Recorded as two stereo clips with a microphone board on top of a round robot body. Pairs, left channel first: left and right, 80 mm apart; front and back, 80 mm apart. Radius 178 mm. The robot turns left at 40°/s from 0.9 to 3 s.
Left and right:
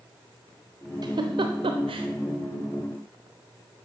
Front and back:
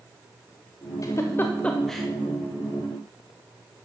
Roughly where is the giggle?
Ahead right.